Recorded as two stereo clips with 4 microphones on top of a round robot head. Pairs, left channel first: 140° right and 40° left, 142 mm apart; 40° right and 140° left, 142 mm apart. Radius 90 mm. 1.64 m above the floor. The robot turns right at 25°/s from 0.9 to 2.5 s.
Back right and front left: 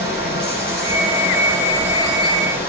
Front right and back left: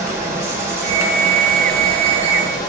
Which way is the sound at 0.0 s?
150° right.